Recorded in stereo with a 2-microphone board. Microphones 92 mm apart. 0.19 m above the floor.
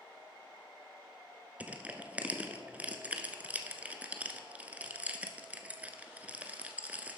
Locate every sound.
1.6 s crushing: 15° right (ahead or behind), 0.6 m